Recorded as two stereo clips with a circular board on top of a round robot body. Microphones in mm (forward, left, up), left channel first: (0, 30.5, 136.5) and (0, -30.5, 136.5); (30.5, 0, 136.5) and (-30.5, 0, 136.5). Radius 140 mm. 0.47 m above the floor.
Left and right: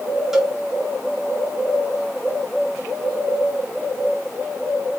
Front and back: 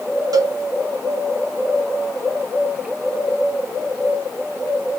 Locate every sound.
0.3 s a cowbell: 175° right, 0.8 m